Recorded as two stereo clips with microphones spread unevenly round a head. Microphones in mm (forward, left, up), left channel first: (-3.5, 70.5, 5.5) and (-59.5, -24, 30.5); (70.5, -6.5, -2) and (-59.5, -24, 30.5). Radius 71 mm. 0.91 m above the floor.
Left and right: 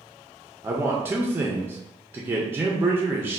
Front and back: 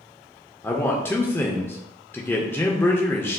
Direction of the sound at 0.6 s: 40° right.